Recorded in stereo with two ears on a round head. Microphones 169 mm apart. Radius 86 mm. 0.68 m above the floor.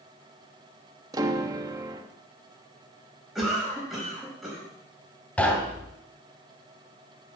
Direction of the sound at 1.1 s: 20° right (ahead or behind).